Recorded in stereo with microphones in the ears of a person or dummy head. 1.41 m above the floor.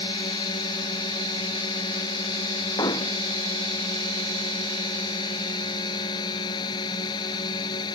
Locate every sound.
0.0 s a drone: 20° left (ahead or behind)
2.8 s hammering: 25° left (ahead or behind)